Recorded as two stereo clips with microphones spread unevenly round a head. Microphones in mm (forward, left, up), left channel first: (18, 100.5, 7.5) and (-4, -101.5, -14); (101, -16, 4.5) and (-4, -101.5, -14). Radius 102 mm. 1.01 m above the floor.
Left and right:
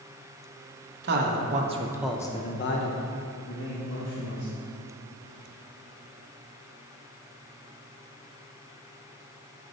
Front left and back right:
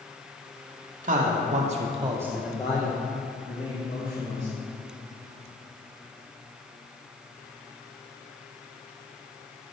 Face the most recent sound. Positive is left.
turn(degrees=80)